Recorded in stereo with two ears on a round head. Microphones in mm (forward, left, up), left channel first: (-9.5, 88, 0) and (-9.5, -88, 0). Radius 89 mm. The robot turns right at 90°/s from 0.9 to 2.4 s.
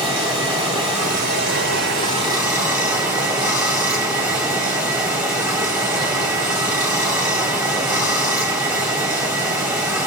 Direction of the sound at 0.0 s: 155° right.